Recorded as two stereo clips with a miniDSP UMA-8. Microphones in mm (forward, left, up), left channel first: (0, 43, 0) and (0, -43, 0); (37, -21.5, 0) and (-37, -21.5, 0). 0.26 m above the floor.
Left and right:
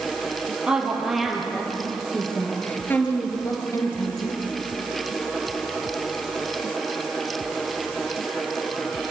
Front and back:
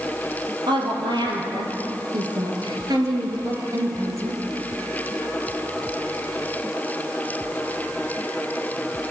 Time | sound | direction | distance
0.7 | a woman speaking | 170° right | 5.5 m